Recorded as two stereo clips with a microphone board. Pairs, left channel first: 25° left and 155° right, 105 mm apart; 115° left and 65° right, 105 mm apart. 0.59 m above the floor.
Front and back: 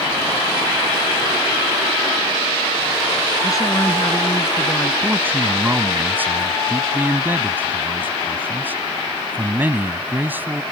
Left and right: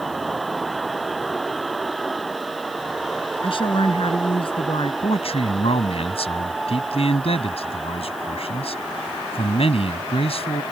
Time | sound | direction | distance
3.4 | a woman speaking | 80° left | ?
5.0 | a man speaking | 130° left | ?